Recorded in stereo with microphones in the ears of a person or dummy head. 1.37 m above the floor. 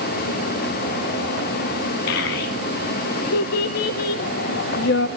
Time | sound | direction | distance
2.1 | a child speaking | 70° left (ahead or behind) | 0.9 m